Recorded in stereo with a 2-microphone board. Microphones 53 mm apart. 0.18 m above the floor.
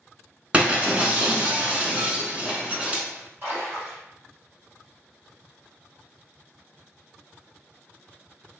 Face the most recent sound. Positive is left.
turn(degrees=-50)  # may be behind; listen again after turning